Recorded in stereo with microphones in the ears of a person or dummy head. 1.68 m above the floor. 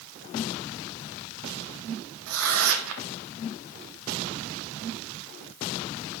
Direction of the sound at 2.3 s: 75° right (ahead or behind).